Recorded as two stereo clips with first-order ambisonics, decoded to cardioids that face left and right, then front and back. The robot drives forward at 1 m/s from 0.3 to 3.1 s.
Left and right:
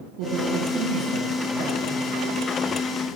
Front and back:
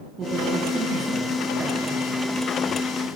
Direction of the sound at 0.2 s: 110° right.